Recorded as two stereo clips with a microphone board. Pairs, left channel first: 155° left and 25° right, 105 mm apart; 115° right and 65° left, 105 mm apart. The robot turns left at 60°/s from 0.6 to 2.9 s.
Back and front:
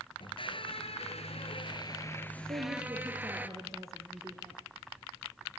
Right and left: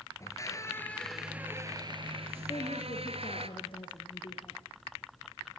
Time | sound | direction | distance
0.2 | a squeak | 170° right | 1.7 m
2.5 | a woman speaking | 60° right | 4.5 m